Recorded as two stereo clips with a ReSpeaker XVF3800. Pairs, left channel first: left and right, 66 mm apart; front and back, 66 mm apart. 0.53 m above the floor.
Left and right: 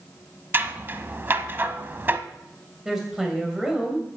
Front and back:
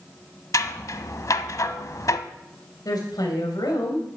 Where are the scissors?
35° right, 0.8 m.